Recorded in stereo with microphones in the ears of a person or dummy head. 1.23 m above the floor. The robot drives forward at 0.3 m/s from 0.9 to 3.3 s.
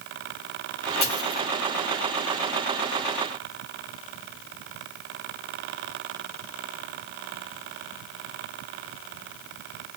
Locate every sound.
1.0 s a dropped coin: 20° left (ahead or behind), 1.1 m; by 1.4 s 15° left (ahead or behind), 1.2 m